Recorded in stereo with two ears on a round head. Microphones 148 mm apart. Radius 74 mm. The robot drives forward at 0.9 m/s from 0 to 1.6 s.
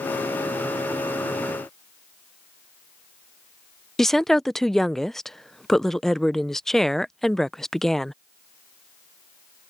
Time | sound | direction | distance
4.0 | a woman speaking | centre (ahead or behind) | ?